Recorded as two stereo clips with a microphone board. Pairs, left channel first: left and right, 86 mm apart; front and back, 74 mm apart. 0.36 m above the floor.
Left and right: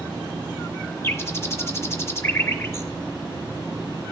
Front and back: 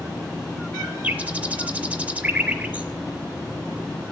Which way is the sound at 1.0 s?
125° left.